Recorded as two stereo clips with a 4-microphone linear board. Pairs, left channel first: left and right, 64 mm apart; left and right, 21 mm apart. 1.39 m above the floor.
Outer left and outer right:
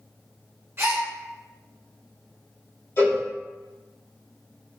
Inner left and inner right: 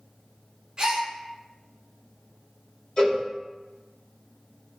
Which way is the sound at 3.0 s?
45° left (ahead or behind).